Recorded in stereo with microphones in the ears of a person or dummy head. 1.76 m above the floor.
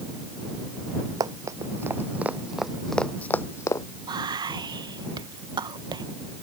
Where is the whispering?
25° right (ahead or behind).